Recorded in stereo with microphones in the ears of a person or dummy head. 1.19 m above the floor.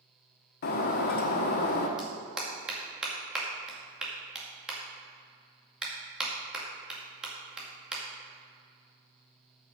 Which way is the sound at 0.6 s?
55° left (ahead or behind).